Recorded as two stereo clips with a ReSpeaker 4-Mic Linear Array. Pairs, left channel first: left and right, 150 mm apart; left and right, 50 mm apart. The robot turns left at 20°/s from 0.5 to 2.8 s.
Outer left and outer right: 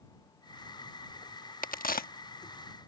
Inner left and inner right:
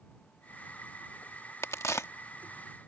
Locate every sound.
1.6 s a crack: 65° left (ahead or behind); by 2.1 s 75° left (ahead or behind)